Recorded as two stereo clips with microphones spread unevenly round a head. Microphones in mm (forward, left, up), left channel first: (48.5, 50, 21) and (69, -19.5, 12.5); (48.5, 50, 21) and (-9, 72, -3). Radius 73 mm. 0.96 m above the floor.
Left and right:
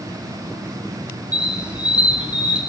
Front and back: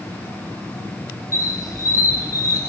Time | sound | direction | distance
1.3 | a squeak | straight ahead | 3 m